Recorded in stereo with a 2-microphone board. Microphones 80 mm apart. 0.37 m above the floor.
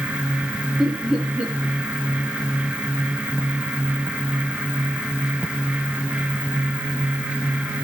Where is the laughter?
15° right (ahead or behind), 7 m.